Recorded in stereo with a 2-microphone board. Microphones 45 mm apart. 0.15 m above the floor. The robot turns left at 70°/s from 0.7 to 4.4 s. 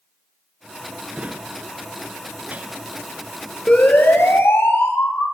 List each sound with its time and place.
1.1 s a drawer: 25° right (ahead or behind), 0.9 m
3.7 s a siren: 25° left (ahead or behind), 4 m; by 5.2 s 70° left (ahead or behind), 5.5 m